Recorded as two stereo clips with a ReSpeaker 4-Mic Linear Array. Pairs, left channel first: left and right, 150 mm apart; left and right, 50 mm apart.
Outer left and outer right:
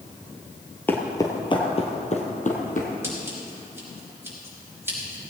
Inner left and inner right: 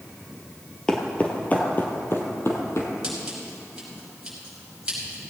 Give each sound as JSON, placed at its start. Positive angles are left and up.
{"t": 0.9, "sound": "footsteps", "side_deg": 15, "distance_m": 1.5}
{"t": 3.0, "sound": "scissors", "side_deg": -15, "distance_m": 5.0}